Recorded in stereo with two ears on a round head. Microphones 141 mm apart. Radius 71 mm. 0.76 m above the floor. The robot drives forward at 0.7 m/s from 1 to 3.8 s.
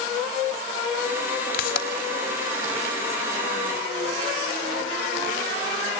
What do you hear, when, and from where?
1.5 s a pop: 65° left (ahead or behind), 3 m